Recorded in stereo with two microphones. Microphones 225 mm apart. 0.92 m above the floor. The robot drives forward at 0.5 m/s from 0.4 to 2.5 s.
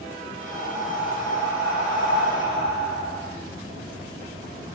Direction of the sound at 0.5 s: 10° right (ahead or behind).